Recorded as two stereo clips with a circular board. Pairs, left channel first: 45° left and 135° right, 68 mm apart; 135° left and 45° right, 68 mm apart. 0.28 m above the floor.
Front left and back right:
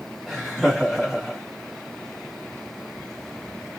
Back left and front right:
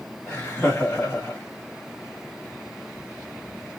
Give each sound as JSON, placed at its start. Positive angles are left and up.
{"t": 0.3, "sound": "laughter", "azimuth_deg": 150, "distance_m": 1.7}